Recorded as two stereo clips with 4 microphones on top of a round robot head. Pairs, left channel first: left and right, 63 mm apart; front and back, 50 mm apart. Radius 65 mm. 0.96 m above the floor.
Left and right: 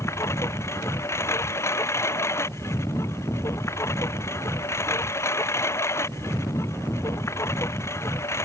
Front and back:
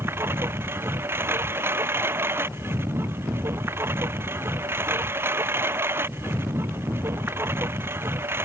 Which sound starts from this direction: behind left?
A lawn mower, at 0.0 s.